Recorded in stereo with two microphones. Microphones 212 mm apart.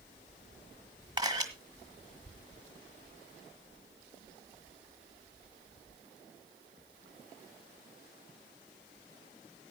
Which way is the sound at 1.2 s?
20° right (ahead or behind).